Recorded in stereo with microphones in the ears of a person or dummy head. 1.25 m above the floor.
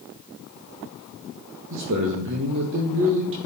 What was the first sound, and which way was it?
A man speaking, 65° right (ahead or behind).